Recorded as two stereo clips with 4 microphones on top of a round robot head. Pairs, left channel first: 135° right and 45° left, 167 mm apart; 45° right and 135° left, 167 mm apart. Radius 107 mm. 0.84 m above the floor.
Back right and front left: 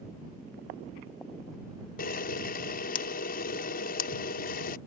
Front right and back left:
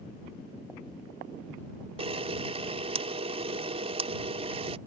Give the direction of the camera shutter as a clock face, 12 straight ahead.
6 o'clock.